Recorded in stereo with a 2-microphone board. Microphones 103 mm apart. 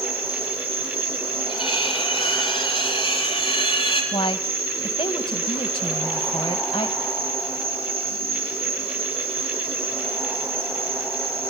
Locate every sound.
0.0 s an insect: 70° right (ahead or behind), 5 m
1.5 s cutlery clinking: 60° left (ahead or behind), 7 m
4.1 s a woman speaking: 60° left (ahead or behind), 2.5 m